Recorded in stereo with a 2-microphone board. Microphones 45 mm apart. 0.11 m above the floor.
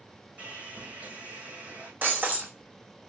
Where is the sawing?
35° right (ahead or behind), 1.5 m.